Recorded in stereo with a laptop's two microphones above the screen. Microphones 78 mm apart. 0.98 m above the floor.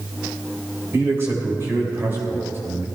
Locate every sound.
0.9 s a man speaking: 30° right (ahead or behind), 3.5 m